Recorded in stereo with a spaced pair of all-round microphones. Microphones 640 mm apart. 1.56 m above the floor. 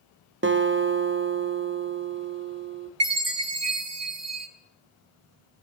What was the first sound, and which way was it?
A guitar, 20° right (ahead or behind).